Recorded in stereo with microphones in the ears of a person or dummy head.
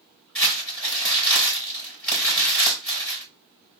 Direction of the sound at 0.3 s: 10° left (ahead or behind).